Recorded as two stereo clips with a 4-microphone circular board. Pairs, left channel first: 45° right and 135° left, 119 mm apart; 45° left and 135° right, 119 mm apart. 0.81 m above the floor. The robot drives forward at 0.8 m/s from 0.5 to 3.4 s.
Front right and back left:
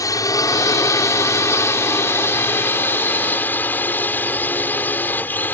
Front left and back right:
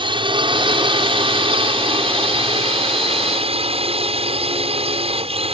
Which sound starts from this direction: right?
A drone, at 0.0 s.